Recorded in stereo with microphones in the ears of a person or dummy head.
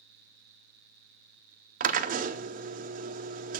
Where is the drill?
35° right (ahead or behind), 0.6 m.